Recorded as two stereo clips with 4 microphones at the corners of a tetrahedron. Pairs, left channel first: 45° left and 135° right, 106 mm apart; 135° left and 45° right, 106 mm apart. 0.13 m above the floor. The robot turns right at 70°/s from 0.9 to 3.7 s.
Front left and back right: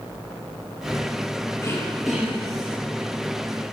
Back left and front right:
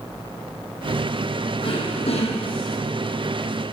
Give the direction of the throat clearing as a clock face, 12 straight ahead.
9 o'clock.